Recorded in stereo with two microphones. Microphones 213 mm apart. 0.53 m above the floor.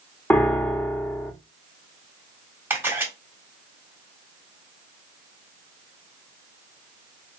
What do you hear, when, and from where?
0.3 s a piano: 10° left (ahead or behind), 0.6 m
2.7 s a camera shutter: 10° right (ahead or behind), 1.5 m